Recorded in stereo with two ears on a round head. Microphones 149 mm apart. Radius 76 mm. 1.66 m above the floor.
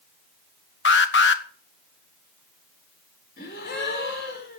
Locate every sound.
0.8 s an alarm: 85° left, 1.3 m
3.4 s a gasp: 65° left (ahead or behind), 4 m